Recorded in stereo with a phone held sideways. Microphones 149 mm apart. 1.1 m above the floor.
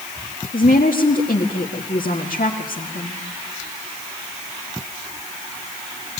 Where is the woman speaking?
75° left (ahead or behind), 1.9 m.